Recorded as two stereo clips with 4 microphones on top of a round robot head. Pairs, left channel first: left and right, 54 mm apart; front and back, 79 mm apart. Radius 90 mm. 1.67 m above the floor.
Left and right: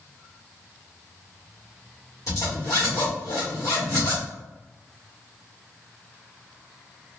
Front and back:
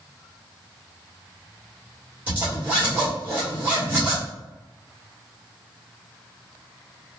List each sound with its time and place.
2.3 s a zipper: 120° left, 1.5 m